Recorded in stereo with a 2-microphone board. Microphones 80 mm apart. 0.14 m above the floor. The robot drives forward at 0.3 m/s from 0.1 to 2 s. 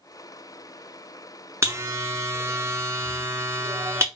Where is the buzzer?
35° right (ahead or behind), 0.7 m.